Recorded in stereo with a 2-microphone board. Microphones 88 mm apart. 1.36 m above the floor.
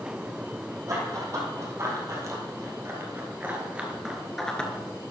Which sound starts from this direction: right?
Running footsteps, at 0.9 s.